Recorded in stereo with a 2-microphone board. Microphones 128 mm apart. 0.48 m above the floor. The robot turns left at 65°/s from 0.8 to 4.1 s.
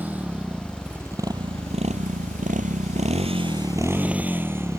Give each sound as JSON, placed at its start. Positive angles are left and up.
{"t": 0.0, "sound": "a motorcycle", "side_deg": -15}